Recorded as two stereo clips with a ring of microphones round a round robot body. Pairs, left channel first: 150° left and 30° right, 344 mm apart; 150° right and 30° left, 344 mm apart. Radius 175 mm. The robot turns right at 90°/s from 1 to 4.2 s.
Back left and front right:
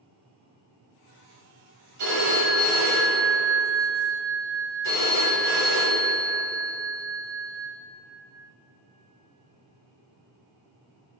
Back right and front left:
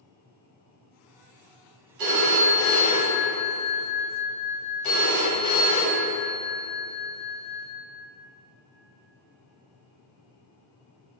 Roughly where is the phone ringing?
Ahead.